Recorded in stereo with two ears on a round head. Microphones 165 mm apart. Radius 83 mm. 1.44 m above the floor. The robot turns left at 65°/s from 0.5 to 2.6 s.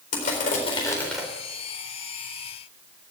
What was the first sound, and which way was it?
Crushing, 45° left.